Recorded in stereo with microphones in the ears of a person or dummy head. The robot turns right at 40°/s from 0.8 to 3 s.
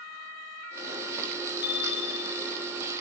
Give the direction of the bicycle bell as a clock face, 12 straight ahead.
10 o'clock.